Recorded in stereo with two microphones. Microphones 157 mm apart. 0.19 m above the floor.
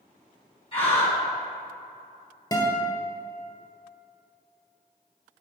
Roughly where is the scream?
Left.